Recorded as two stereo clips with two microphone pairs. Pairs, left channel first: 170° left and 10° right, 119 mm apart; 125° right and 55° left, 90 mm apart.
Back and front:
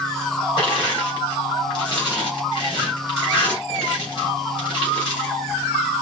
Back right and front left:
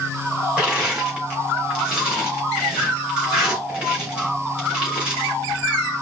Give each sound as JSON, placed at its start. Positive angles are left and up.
{"t": 0.6, "sound": "crushing", "azimuth_deg": 130, "distance_m": 3.0}